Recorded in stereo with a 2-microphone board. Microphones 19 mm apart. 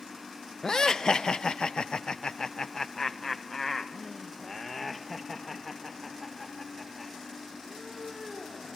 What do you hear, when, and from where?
0.6 s laughter: 40° left (ahead or behind), 1.0 m; by 8.8 s 5° left (ahead or behind), 4 m